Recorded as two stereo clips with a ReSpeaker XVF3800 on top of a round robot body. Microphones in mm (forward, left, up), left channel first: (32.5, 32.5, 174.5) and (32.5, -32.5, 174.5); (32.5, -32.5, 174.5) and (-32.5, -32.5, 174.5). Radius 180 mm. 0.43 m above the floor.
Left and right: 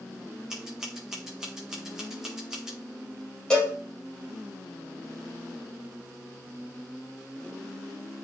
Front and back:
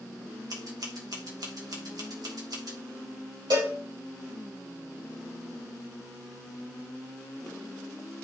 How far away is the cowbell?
About 6 m.